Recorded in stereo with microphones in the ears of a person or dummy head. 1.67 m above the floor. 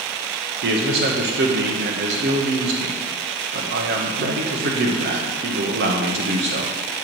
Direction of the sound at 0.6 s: 65° right (ahead or behind).